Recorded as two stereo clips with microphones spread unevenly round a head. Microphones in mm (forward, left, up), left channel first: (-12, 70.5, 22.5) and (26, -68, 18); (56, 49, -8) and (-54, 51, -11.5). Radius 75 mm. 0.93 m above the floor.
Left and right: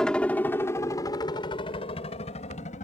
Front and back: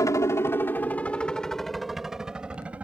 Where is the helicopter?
25° left; by 2.9 s 105° left.